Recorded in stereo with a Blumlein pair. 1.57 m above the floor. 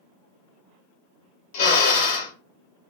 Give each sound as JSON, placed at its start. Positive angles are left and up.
{"t": 1.5, "sound": "a drill", "azimuth_deg": 55, "distance_m": 0.8}